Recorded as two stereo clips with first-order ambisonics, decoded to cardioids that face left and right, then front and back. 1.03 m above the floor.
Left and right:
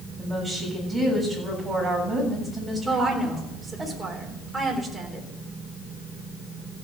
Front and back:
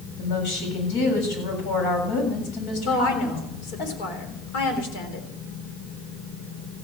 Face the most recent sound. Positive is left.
turn(degrees=-10)